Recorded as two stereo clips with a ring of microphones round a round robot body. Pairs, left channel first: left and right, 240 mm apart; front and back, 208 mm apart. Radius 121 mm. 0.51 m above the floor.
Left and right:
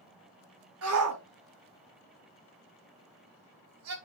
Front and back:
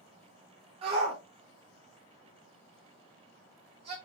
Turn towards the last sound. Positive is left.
turn(degrees=-115)